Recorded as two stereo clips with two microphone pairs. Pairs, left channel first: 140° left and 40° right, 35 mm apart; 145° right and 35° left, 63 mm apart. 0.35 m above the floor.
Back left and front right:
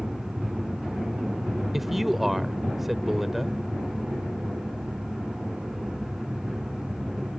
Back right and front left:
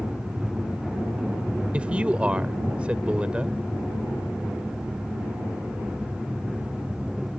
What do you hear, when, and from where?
1.7 s a man speaking: 35° left